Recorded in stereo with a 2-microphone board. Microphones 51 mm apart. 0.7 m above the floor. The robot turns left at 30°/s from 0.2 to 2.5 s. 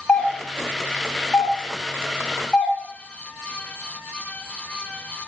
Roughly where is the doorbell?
Centre.